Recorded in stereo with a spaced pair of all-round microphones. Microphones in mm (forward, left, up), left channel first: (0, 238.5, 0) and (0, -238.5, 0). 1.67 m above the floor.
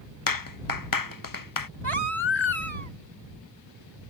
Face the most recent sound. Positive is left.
turn(degrees=70)  # may be behind; listen again after turning